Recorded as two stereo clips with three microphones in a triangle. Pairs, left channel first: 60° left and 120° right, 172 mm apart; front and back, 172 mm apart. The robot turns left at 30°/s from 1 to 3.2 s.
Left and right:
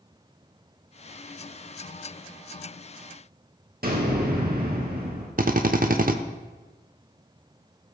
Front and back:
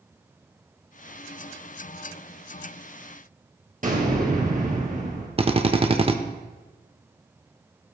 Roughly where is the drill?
Behind right.